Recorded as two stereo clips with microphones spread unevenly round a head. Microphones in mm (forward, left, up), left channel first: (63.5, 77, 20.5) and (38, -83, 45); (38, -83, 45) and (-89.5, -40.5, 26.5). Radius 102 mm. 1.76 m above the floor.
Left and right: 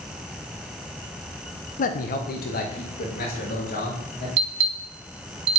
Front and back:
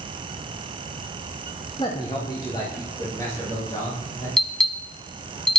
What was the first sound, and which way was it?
A man speaking, 40° left.